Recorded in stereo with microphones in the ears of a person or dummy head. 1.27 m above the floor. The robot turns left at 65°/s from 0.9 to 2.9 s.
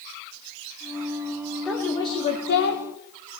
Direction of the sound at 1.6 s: Straight behind.